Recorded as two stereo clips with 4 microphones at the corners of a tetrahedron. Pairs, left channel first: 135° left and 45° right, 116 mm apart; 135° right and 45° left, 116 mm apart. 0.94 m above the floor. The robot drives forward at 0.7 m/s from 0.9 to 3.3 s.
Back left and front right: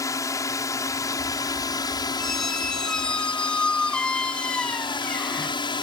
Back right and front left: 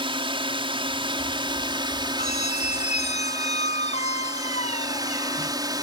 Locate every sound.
0.0 s a drone: 80° left; by 5.8 s 95° left
2.2 s a squeak: 140° right; by 5.6 s 145° right